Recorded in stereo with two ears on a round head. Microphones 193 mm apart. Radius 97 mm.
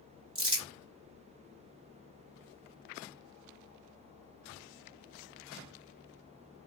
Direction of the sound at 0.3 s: 25° right (ahead or behind).